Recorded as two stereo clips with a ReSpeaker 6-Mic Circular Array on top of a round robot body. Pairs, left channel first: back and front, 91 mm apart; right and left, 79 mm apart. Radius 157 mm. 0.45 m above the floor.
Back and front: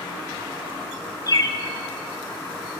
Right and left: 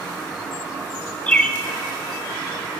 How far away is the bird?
About 1.0 m.